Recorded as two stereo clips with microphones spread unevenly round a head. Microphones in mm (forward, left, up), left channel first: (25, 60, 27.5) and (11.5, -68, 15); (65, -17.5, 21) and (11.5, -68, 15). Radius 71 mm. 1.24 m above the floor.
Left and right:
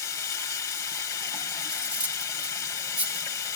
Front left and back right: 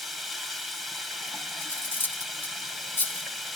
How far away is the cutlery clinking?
About 2.0 m.